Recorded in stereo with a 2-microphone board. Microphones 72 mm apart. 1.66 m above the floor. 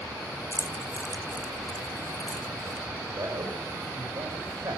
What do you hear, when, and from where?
0.5 s keys jangling: 35° left (ahead or behind), 1.0 m; by 2.9 s 65° left (ahead or behind), 1.8 m
3.1 s a man speaking: 70° right (ahead or behind), 6 m